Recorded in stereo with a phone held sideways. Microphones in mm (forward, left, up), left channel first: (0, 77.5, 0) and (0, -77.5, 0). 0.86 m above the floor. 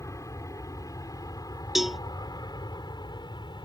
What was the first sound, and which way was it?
An aircraft, 20° left (ahead or behind).